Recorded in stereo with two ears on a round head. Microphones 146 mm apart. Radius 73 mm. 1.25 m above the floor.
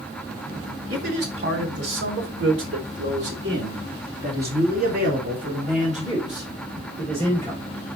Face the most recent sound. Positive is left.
turn(degrees=-30)  # may be behind; listen again after turning